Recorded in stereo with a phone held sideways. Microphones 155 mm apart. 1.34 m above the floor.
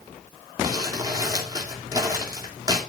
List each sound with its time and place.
0.6 s crumpling: 25° right (ahead or behind), 3 m